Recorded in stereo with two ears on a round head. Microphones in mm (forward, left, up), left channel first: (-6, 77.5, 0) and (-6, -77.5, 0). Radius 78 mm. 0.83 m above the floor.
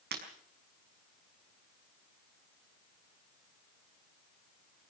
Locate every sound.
0.1 s breaking glass: 60° right (ahead or behind), 5 m